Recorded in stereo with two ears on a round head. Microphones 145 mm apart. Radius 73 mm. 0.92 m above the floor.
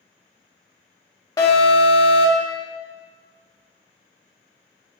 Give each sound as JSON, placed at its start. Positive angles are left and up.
{"t": 1.4, "sound": "an alarm", "side_deg": 25, "distance_m": 0.8}